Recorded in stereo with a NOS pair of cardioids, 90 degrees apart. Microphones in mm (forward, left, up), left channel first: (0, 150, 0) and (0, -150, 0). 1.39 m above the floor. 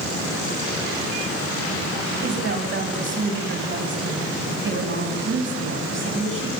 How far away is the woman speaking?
About 8 m.